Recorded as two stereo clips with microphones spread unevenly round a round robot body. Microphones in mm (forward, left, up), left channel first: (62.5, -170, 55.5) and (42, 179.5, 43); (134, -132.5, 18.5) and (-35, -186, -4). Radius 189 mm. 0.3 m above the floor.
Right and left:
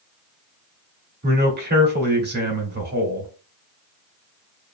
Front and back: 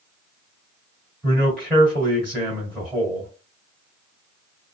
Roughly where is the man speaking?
Left.